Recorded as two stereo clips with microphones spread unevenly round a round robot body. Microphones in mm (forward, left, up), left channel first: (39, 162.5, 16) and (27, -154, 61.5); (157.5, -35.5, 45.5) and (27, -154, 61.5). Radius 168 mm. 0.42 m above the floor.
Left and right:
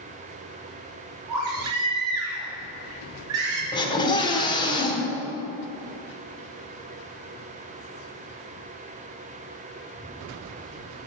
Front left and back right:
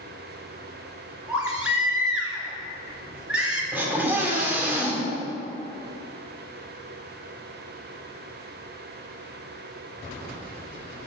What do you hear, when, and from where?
1.3 s a baby crying: 55° right, 3 m
3.7 s a scream: 140° left, 1.4 m